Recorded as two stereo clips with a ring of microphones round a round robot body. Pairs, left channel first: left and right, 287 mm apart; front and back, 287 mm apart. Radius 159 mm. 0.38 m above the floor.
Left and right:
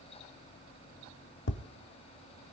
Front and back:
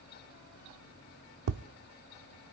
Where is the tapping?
145° left, 0.6 m.